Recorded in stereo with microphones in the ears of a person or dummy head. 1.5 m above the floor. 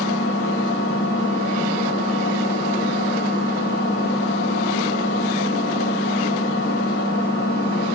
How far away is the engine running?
About 3 m.